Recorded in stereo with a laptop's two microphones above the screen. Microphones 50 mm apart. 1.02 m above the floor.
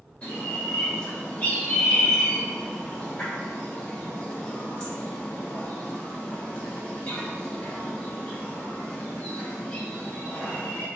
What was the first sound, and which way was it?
A bird, 30° left (ahead or behind).